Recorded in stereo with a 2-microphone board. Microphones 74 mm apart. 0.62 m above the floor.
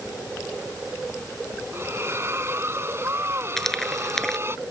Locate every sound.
1.7 s a splash: 40° right (ahead or behind)
3.6 s frying: 5° left (ahead or behind)